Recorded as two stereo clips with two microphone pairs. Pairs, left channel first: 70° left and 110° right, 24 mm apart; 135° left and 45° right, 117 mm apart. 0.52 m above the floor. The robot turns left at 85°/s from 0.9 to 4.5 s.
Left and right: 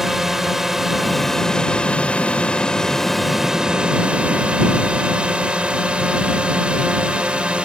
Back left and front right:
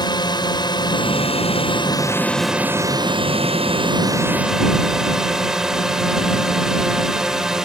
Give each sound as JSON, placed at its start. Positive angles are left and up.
{"t": 0.0, "sound": "a drone", "azimuth_deg": 175}